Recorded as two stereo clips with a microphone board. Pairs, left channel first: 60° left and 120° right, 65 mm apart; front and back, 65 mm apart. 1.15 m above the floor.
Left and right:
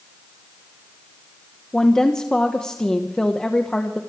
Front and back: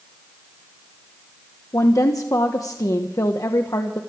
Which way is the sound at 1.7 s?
15° right.